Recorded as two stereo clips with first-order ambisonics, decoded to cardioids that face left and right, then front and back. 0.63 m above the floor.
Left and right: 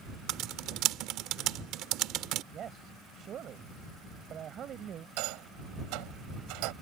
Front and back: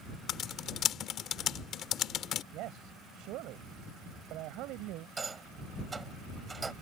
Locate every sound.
0.3 s typing on a keyboard: 50° right
2.5 s a man speaking: 150° right
5.2 s a rattle: 105° right